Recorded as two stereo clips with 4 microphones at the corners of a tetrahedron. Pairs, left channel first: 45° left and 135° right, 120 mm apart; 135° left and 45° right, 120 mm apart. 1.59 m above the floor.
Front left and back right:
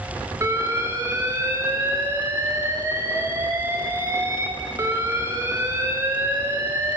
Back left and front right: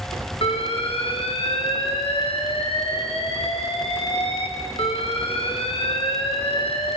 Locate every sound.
0.4 s an alarm: 165° left, 1.9 m